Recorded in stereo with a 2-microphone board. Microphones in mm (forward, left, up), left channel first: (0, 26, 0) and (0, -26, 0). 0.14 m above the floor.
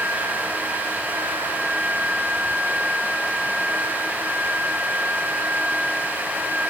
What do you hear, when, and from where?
Only background noise.